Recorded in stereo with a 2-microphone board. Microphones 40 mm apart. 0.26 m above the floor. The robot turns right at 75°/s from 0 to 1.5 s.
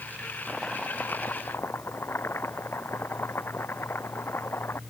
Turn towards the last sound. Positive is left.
turn(degrees=80)